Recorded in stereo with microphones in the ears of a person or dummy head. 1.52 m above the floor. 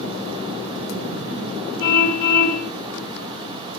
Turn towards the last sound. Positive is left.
turn(degrees=55)  # may be behind; listen again after turning